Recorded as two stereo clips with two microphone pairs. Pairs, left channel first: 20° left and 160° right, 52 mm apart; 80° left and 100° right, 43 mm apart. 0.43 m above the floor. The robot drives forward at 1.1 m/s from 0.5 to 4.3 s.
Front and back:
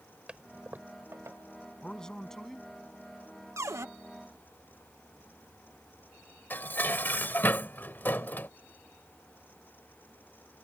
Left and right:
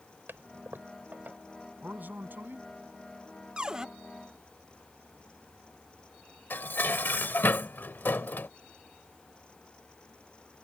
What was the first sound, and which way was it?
A toilet flushing, 95° right.